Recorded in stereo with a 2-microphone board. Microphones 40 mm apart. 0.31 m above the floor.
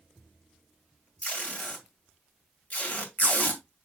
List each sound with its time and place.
1.2 s tape being pulled: 40° left (ahead or behind), 2 m